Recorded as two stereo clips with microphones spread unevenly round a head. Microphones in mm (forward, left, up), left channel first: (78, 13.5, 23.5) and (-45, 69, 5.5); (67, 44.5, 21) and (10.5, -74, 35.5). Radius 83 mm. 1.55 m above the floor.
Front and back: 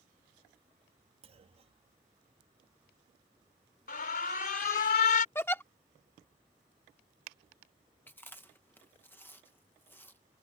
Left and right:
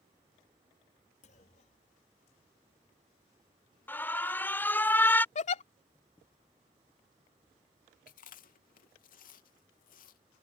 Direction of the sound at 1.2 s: 110° left.